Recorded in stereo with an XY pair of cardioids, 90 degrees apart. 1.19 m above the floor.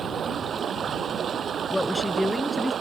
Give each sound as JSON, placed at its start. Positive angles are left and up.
{"t": 0.0, "sound": "running water", "azimuth_deg": -55}
{"t": 1.7, "sound": "a woman speaking", "azimuth_deg": 10}